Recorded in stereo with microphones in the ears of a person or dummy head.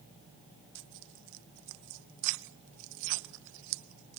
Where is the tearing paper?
70° right (ahead or behind), 0.6 m.